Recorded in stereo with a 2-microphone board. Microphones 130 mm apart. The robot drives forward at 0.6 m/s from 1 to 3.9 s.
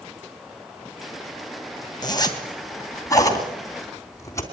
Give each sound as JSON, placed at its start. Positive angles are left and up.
{"t": 2.0, "sound": "a zipper", "side_deg": 30, "distance_m": 2.5}